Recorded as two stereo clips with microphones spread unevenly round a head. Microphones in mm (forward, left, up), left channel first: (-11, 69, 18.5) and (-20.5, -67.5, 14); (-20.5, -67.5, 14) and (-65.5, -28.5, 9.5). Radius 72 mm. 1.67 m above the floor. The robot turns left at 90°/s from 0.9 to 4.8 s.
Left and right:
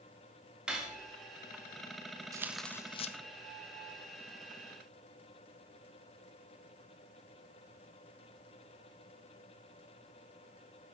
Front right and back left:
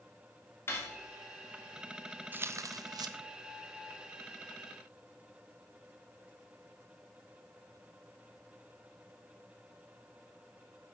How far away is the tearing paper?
About 0.7 m.